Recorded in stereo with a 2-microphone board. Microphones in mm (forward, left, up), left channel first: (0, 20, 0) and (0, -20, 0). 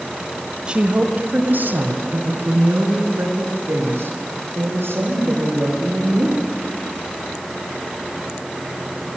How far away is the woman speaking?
About 1.3 m.